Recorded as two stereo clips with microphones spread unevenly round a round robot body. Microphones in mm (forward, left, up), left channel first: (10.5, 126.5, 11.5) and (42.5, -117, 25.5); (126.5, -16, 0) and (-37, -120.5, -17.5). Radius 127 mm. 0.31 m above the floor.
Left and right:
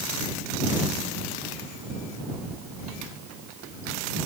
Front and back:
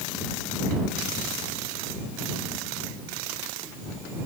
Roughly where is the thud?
No thud in this recording.